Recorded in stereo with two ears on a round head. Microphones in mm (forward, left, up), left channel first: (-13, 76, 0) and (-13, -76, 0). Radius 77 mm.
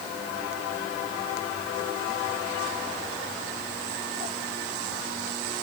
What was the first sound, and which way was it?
Only background noise.